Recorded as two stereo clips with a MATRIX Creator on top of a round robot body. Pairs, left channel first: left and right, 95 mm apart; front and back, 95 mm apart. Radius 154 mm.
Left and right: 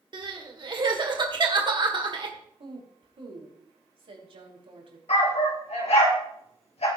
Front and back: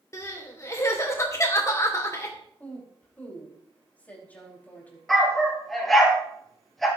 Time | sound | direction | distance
0.1 | crying | 60° right | 2.5 m
2.6 | a woman speaking | 75° right | 5 m
5.1 | a dog barking | 90° left | 3.5 m